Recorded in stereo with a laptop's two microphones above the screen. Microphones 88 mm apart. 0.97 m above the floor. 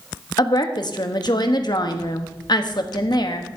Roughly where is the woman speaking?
Left.